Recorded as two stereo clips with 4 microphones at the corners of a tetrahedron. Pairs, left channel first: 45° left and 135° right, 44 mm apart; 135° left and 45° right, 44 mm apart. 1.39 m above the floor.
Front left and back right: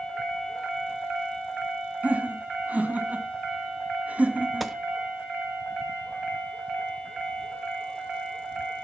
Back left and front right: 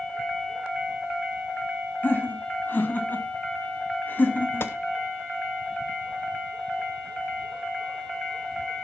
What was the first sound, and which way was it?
Laughter, 170° left.